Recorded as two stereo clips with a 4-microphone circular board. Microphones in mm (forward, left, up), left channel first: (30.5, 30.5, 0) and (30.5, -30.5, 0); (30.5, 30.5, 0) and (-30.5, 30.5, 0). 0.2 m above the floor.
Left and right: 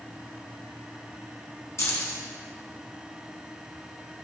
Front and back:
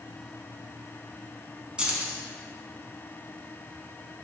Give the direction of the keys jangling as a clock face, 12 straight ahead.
8 o'clock.